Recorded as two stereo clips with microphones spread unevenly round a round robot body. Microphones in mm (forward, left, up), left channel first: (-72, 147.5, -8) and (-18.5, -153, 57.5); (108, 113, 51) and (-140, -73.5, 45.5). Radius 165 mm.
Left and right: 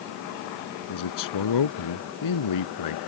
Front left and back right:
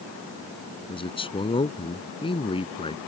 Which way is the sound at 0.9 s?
110° left.